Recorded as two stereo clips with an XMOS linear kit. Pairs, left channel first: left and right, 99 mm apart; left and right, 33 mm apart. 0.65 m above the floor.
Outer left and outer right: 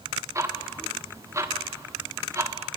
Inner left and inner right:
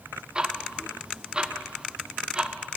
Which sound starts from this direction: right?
Ticking, at 0.3 s.